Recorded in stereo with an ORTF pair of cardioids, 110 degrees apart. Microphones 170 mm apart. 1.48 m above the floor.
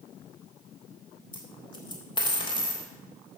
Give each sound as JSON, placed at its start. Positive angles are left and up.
{"t": 1.3, "sound": "a dropped coin", "azimuth_deg": 30, "distance_m": 3.5}